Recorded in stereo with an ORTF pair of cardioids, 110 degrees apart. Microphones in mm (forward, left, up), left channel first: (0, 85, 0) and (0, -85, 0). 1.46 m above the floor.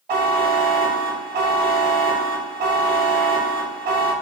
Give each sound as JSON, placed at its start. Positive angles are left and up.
{"t": 0.1, "sound": "a buzzer", "azimuth_deg": -55, "distance_m": 2.5}